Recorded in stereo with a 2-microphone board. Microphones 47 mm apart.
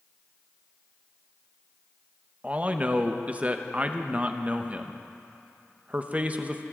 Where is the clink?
No clink in this recording.